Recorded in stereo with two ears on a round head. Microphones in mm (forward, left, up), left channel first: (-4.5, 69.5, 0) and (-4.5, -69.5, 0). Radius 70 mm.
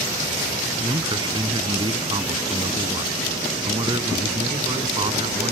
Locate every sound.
0.8 s a man speaking: 25° right (ahead or behind)